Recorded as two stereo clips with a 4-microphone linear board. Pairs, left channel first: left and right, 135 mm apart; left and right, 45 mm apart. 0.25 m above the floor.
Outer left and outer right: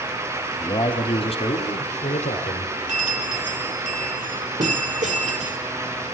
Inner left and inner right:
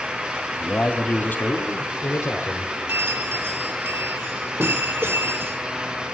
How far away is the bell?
About 3.5 m.